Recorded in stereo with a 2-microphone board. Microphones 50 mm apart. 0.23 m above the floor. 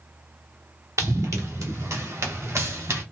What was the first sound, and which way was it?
Running footsteps, 75° right (ahead or behind).